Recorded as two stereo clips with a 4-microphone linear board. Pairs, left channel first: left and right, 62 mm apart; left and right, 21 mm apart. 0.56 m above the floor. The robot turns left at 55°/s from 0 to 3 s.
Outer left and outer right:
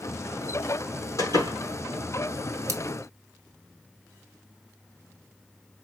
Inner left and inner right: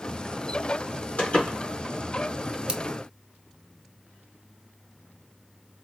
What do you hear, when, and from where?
1.2 s a door slam: 80° left, 4 m; by 1.6 s 60° left (ahead or behind), 4 m
2.7 s scissors: 55° right (ahead or behind), 1.5 m; by 2.8 s 60° right (ahead or behind), 1.5 m